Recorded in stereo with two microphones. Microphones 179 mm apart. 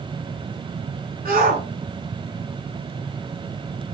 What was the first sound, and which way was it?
A shout, 55° right (ahead or behind).